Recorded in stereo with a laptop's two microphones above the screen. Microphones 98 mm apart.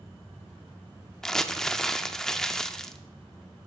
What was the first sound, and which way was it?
Crumpling, 5° left (ahead or behind).